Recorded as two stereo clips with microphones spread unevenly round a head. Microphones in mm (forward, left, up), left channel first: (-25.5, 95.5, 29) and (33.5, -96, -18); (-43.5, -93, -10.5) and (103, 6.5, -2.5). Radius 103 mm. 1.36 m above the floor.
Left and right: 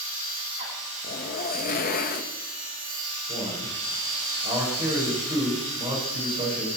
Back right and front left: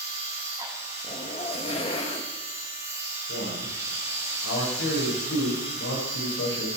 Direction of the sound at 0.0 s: 40° right.